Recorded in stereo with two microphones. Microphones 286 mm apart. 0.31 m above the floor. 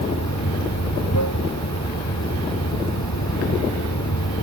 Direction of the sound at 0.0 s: 70° left (ahead or behind).